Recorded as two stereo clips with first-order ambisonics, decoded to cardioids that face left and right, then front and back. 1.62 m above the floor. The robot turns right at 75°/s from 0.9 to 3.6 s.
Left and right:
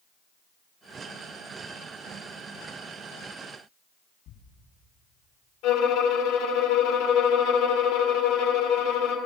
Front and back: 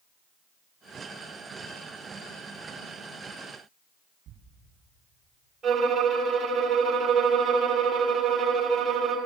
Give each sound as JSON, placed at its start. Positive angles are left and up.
{"t": 4.3, "sound": "a thud", "azimuth_deg": 120, "distance_m": 7.0}
{"t": 5.6, "sound": "a violin", "azimuth_deg": 105, "distance_m": 3.5}